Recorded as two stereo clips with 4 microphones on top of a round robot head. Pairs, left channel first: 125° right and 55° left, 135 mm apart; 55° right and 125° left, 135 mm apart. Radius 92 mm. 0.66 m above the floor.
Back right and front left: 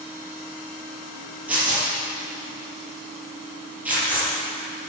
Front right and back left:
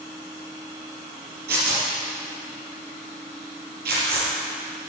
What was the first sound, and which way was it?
Tearing paper, 135° left.